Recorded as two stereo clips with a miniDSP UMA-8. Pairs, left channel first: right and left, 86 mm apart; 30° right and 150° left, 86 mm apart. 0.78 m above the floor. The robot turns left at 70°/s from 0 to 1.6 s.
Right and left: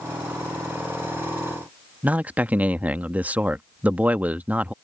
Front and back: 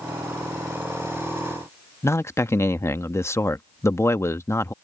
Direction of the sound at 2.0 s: 20° left.